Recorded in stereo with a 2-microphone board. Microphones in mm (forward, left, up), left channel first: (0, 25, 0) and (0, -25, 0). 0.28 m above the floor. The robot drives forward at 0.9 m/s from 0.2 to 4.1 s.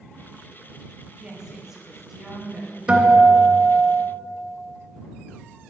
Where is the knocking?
No knocking in this recording.